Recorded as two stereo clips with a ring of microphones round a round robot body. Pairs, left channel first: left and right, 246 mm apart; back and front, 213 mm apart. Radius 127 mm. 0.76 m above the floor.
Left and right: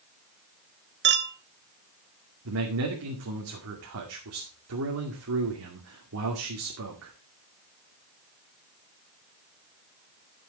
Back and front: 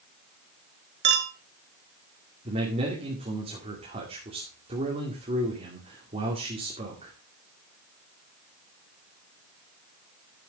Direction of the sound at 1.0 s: 45° right.